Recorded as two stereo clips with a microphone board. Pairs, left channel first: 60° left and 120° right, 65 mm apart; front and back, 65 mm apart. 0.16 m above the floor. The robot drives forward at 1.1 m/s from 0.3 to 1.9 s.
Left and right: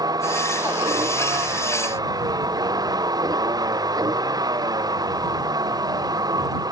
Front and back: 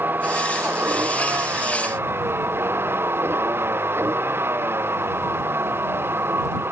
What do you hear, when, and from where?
0.0 s a vehicle: 120° right; by 6.7 s 125° right